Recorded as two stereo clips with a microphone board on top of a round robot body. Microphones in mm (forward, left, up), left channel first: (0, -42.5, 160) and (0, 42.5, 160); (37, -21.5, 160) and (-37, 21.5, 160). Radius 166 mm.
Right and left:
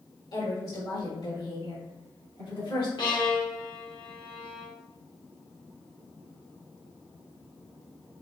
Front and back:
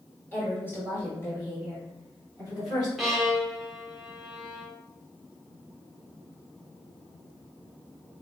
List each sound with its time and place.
0.3 s a woman speaking: 100° right, 2 m; by 2.9 s 75° right, 5 m
3.0 s a violin: 120° right, 1.6 m